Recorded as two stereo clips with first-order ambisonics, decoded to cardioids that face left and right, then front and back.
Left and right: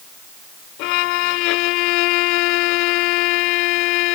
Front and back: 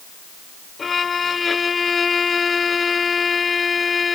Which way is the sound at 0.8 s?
75° left.